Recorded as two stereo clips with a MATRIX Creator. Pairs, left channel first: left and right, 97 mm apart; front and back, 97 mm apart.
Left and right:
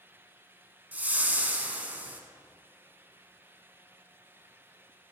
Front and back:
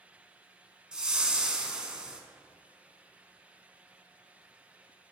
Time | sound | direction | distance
0.9 | a whoosh | 115° right | 0.6 m